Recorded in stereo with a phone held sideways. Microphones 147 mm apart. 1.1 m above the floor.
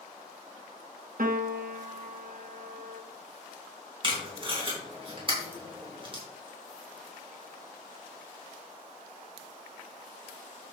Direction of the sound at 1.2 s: 70° right (ahead or behind).